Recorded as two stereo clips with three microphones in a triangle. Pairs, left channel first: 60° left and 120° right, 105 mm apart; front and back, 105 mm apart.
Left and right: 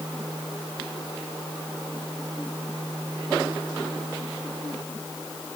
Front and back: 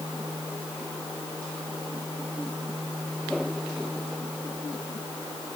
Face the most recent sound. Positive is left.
No sound to turn to.